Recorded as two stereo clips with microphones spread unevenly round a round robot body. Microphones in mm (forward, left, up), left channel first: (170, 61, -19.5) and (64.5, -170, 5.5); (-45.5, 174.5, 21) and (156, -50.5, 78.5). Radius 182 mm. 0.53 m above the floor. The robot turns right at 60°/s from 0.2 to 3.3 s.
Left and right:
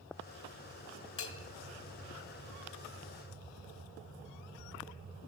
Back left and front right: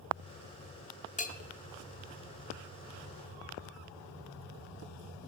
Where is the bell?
80° left, 0.8 m; by 1.4 s 95° left, 0.8 m.